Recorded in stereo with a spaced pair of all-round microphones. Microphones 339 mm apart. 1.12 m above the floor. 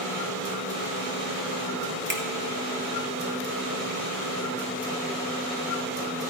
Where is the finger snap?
65° right (ahead or behind), 1.7 m.